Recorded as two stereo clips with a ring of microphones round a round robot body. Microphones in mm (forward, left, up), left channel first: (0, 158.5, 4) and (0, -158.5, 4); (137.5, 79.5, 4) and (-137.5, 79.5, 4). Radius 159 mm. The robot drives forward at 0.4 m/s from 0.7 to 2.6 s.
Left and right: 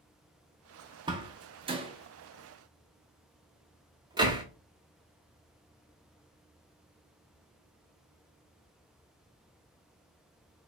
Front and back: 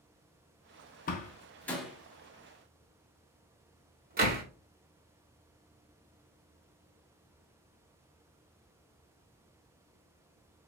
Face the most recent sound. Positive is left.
turn(degrees=-155)